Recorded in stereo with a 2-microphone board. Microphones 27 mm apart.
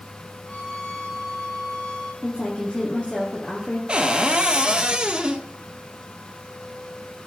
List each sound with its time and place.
0.4 s a violin: 45° left (ahead or behind), 7.5 m
2.2 s a woman speaking: 45° left (ahead or behind), 2.5 m
3.9 s a cupboard door: 35° right (ahead or behind), 1.1 m